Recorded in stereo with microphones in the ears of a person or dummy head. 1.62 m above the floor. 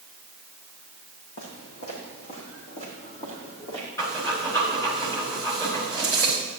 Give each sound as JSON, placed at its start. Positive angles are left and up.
{"t": 1.4, "sound": "footsteps", "side_deg": 55, "distance_m": 4.5}
{"t": 4.0, "sound": "breathing", "side_deg": 20, "distance_m": 4.5}